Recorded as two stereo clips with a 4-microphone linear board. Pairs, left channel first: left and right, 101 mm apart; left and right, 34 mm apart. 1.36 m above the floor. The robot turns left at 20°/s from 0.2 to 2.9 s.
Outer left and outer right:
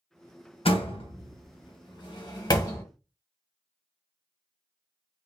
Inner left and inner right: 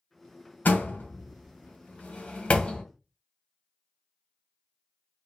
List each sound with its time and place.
0.7 s a door slam: 65° left (ahead or behind), 0.9 m; by 2.8 s 35° left (ahead or behind), 0.9 m